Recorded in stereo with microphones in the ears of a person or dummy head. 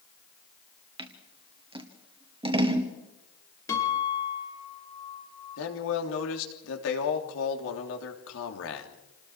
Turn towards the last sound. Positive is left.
turn(degrees=75)  # may be behind; listen again after turning